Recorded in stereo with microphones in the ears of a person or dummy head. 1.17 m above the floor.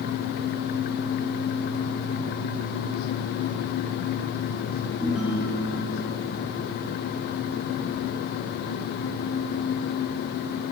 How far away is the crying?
I don't hear crying.